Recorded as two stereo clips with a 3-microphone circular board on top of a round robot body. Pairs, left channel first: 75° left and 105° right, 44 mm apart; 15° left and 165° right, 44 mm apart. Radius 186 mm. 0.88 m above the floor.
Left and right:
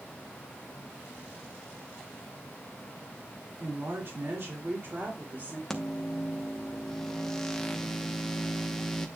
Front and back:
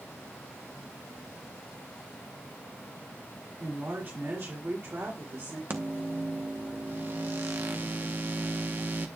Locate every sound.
3.6 s a woman speaking: 125° right, 3 m; by 5.6 s 150° right, 2.5 m
5.7 s a microwave: 155° left, 1.0 m